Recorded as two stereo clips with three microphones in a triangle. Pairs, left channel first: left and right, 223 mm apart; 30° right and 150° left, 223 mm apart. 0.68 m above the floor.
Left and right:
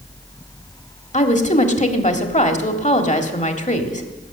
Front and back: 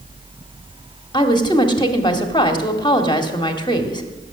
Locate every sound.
1.1 s a woman speaking: 35° left, 1.8 m